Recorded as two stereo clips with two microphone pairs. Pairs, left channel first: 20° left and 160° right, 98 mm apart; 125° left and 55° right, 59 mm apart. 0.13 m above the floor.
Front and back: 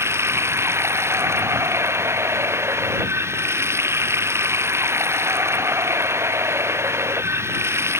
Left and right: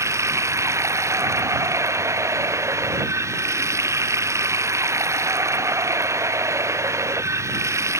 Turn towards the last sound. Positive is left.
turn(degrees=-95)